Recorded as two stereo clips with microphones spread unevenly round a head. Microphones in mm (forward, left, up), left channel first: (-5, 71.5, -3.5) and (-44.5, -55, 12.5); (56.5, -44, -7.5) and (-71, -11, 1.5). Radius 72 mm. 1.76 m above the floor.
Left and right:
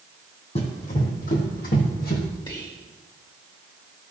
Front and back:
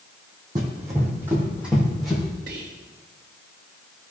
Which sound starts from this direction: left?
Running footsteps, at 0.6 s.